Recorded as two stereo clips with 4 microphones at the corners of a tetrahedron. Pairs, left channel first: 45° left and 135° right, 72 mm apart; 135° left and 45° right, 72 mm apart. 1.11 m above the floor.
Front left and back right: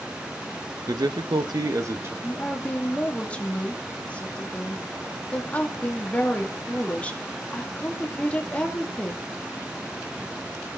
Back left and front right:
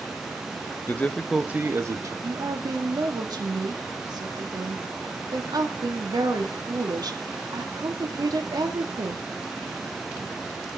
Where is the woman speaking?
25° right, 2 m.